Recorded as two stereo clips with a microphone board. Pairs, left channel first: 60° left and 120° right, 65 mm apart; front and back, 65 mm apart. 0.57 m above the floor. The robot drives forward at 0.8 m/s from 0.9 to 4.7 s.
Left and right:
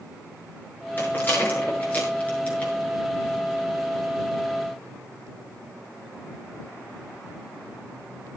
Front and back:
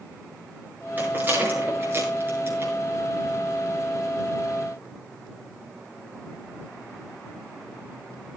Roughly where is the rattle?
Behind left.